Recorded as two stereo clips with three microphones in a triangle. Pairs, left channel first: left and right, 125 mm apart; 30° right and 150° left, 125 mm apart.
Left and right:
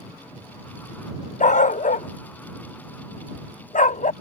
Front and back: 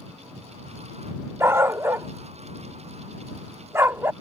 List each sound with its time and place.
1.4 s a dog barking: 85° left